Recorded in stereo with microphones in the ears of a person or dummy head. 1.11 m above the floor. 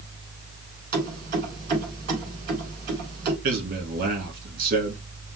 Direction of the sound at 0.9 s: 50° right (ahead or behind).